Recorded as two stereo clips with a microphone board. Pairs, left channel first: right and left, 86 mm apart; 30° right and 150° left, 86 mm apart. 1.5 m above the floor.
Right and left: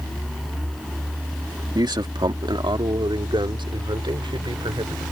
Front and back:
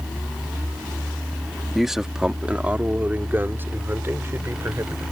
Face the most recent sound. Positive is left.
turn(degrees=95)